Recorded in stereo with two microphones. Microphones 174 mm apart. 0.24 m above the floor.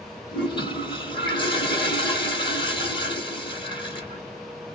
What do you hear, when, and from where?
0.3 s a toilet flushing: 25° left (ahead or behind), 1.1 m